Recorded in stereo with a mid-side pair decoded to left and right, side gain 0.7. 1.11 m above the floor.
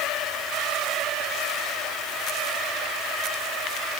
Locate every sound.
Only background noise.